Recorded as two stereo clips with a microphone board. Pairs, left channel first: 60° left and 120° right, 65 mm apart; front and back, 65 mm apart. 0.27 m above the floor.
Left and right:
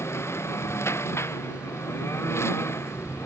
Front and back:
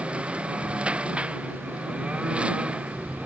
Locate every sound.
0.0 s a lawn mower: 110° left